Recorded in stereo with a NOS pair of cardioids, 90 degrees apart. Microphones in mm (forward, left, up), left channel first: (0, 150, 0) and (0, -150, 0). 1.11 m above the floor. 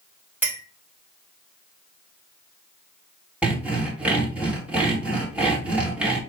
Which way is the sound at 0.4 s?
5° right.